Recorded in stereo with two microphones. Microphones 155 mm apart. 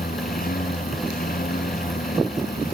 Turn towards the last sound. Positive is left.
turn(degrees=70)  # may be behind; listen again after turning